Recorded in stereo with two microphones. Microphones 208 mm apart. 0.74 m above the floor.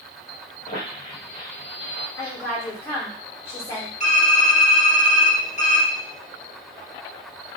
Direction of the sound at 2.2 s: 15° left (ahead or behind).